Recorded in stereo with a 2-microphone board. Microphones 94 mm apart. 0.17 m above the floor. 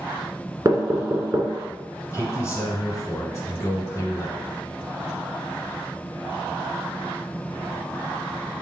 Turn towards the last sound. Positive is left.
turn(degrees=30)  # may be behind; listen again after turning